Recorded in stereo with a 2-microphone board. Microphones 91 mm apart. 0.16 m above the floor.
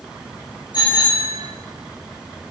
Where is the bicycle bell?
55° left (ahead or behind), 9.5 m.